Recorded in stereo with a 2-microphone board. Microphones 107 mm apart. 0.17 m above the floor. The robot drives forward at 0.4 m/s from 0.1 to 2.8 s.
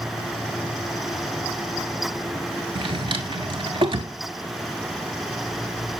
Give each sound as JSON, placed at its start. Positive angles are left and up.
{"t": 2.8, "sound": "a drawer", "side_deg": -60, "distance_m": 0.7}